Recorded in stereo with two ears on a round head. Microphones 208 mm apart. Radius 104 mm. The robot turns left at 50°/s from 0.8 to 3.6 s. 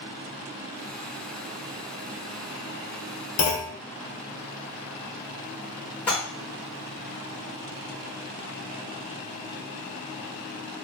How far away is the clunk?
About 0.7 m.